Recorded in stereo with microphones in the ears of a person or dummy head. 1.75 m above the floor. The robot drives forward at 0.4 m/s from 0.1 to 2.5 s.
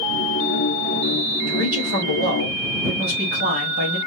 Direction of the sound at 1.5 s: 45° right (ahead or behind).